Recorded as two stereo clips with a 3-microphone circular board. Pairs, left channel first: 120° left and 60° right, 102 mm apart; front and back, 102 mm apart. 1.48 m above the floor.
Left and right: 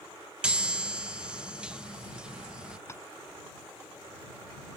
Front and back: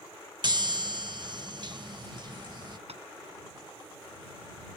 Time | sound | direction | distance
0.4 | a chime | 140° right | ?
2.9 | tapping | straight behind | ?